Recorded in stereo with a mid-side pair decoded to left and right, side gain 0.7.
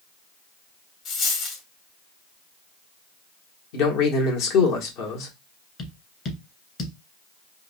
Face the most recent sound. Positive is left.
turn(degrees=40)